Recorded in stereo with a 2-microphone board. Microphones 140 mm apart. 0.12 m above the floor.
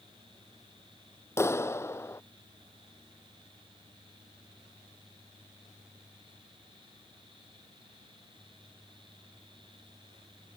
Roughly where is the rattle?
No rattle in this recording.